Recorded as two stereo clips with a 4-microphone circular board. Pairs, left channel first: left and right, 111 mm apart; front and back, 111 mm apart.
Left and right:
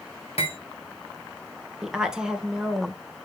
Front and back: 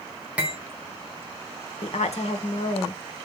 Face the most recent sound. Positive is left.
turn(degrees=-5)